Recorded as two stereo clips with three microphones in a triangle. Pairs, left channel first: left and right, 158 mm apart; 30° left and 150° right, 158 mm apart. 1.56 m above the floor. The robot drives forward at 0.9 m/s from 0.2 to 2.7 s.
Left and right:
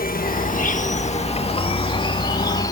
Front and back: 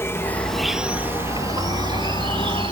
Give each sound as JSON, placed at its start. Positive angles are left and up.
{"t": 0.0, "sound": "an insect", "azimuth_deg": 100}